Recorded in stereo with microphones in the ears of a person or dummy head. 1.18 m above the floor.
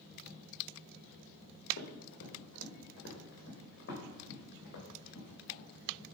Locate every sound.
1.8 s running footsteps: 65° left (ahead or behind), 3 m; by 6.0 s 60° left (ahead or behind), 5 m